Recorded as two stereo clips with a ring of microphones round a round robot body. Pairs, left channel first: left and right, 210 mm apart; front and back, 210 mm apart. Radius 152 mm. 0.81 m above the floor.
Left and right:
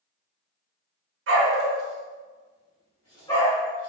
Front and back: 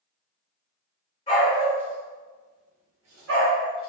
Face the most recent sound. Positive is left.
turn(degrees=165)